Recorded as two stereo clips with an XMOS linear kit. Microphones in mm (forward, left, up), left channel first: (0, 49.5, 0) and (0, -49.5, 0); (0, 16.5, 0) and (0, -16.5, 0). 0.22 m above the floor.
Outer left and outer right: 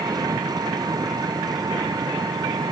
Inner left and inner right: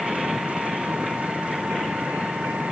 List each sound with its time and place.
0.0 s an engine running: 45° right (ahead or behind)